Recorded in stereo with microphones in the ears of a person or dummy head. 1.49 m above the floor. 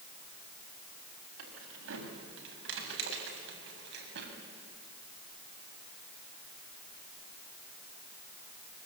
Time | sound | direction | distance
1.4 | keys jangling | 85° right | 6 m